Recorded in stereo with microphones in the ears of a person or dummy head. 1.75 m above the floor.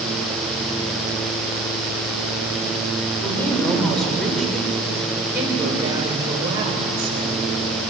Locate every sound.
3.2 s a woman speaking: 10° left (ahead or behind), 7 m; by 7.3 s 30° right (ahead or behind), 8.5 m